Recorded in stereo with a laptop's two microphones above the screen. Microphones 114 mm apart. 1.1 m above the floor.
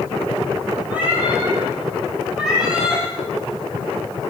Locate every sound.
0.9 s a cat meowing: 15° right (ahead or behind), 9.5 m; by 3.0 s 5° right (ahead or behind), 8.5 m